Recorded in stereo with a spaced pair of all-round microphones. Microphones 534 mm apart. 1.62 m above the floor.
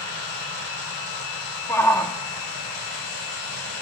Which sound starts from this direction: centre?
A shout, at 1.7 s.